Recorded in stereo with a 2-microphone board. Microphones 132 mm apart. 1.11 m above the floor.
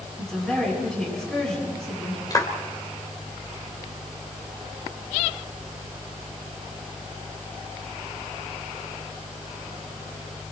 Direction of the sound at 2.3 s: 30° left (ahead or behind).